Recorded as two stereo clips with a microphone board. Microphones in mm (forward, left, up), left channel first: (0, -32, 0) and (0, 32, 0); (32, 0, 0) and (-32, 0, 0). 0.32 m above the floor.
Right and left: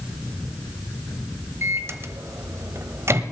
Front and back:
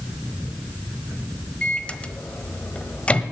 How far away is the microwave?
About 1.0 m.